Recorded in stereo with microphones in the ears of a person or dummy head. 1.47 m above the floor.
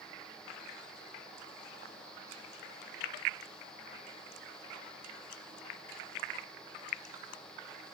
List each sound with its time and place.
Only background noise.